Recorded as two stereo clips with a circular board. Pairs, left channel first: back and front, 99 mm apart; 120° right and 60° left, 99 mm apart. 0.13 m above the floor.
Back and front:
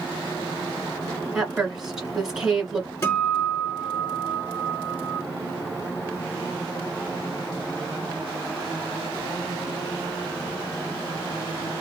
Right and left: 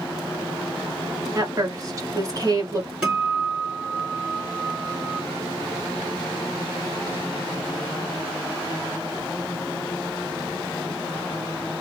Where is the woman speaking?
80° left, 1.8 m.